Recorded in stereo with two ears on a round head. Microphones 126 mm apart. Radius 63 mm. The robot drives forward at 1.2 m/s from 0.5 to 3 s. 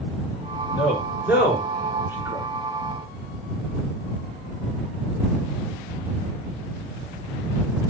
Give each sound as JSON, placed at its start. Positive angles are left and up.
{"t": 0.8, "sound": "a man speaking", "side_deg": -10, "distance_m": 5.5}